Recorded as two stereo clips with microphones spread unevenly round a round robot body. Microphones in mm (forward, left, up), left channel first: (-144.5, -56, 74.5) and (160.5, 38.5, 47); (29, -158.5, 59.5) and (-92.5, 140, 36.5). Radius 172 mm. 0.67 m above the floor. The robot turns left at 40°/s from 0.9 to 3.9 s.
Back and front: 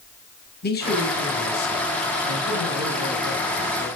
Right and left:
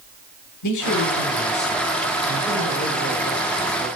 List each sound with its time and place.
0.6 s a man speaking: 100° right, 2.5 m; by 3.9 s 140° left, 2.5 m